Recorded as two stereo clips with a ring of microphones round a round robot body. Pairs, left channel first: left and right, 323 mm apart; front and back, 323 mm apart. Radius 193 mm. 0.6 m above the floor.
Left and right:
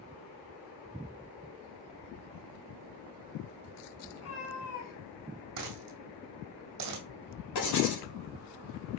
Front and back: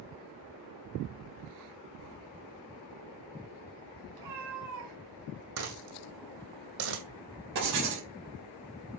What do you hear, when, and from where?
4.1 s a cat meowing: 145° left, 3 m; by 5.5 s 120° left, 4 m
5.6 s a dropped coin: 135° right, 2 m
7.5 s writing: 125° left, 3 m